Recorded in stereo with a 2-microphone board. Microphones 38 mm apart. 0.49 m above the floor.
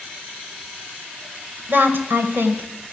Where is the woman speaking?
60° right (ahead or behind), 1.9 m; by 2.9 s 70° right (ahead or behind), 3 m.